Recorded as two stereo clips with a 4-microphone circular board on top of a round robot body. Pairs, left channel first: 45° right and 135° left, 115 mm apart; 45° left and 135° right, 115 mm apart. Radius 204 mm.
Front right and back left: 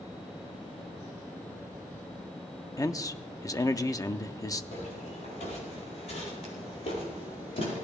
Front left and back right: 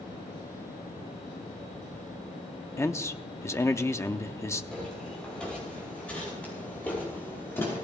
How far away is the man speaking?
About 0.9 m.